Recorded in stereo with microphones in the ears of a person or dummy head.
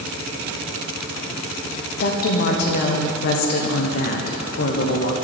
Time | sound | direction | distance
2.0 | a woman speaking | 55° left (ahead or behind) | 1.0 m